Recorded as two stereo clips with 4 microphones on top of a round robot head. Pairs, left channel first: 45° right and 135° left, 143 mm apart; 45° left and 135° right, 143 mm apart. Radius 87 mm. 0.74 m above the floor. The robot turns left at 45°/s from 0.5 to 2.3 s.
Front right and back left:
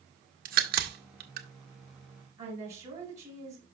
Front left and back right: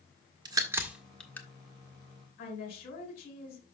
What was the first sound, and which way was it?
A crack, 160° left.